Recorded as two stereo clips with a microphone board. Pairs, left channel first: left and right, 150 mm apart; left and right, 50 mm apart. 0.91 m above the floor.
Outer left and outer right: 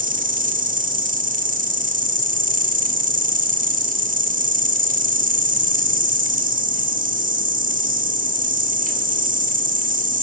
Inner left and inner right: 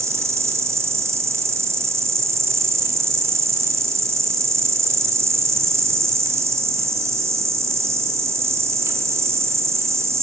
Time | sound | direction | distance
0.0 | an insect | 65° right (ahead or behind) | 1.3 m